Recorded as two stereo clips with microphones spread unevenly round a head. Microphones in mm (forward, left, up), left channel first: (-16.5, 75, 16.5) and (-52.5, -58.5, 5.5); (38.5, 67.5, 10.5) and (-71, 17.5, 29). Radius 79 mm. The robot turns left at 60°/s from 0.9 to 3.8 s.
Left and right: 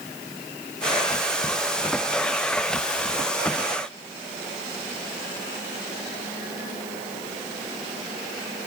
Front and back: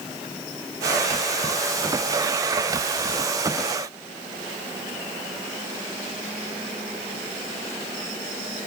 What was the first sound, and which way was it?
Only background noise.